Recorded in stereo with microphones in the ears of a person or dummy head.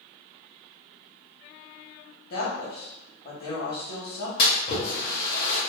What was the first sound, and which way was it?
A woman speaking, 50° left (ahead or behind).